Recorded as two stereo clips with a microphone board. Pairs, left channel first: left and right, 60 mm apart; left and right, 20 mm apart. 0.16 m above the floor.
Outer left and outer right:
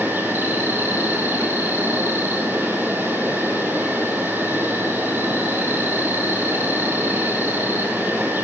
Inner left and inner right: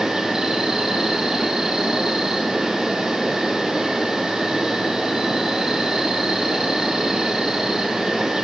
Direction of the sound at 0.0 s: 35° right (ahead or behind).